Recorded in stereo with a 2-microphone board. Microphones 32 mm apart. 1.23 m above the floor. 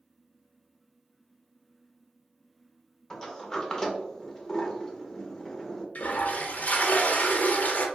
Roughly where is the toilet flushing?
Left.